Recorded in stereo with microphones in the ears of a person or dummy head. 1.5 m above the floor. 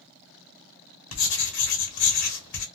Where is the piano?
I don't hear a piano.